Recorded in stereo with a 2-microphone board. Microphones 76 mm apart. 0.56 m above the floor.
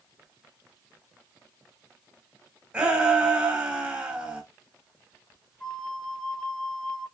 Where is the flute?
10° left (ahead or behind), 2.5 m.